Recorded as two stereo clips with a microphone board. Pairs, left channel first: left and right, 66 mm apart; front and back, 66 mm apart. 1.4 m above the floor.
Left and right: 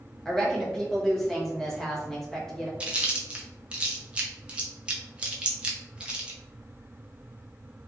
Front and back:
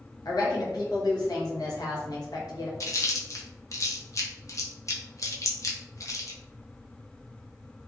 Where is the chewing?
20° right, 0.6 m.